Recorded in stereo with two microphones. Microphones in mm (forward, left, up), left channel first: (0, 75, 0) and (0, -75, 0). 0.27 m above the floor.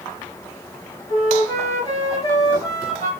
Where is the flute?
25° left (ahead or behind), 2 m.